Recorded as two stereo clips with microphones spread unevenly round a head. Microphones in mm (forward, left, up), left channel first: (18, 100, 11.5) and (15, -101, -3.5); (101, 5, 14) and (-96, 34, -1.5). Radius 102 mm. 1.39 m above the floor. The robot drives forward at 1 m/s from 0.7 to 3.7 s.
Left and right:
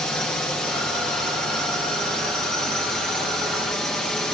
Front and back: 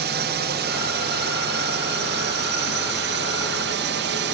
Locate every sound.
0.0 s a drone: 175° left